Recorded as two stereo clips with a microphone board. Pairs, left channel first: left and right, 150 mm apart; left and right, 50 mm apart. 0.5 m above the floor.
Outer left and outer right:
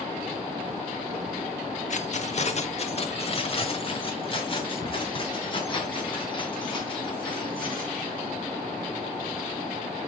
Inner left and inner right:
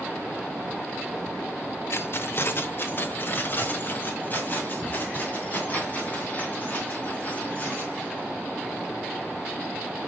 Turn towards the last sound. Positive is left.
turn(degrees=30)  # may be behind; listen again after turning